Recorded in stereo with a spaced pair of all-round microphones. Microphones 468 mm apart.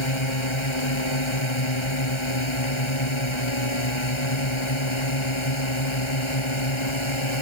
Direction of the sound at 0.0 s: 80° left.